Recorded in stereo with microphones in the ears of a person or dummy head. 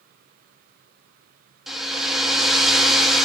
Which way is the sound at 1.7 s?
5° right (ahead or behind).